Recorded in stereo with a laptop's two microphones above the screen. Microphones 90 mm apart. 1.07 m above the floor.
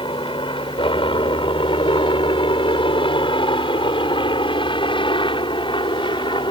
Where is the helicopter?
70° left (ahead or behind); by 6.5 s 65° left (ahead or behind).